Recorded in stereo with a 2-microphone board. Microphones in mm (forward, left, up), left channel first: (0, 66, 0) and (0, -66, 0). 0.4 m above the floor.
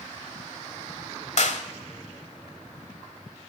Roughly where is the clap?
Left.